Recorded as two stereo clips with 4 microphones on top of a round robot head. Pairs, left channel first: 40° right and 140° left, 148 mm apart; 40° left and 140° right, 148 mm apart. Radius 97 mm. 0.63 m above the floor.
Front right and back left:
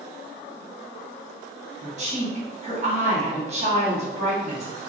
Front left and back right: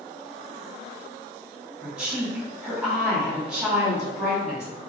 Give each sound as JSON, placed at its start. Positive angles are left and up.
{"t": 1.8, "sound": "a woman speaking", "azimuth_deg": 140, "distance_m": 1.6}